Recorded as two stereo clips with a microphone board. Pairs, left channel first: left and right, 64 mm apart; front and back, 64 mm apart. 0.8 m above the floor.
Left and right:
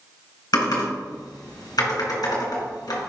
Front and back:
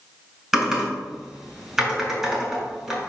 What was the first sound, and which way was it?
Typing on a keyboard, 95° left.